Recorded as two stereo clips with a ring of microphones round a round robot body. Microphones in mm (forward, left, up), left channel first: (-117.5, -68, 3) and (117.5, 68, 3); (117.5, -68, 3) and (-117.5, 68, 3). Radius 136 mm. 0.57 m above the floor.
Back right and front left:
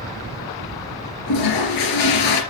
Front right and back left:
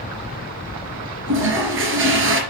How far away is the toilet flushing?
About 3 m.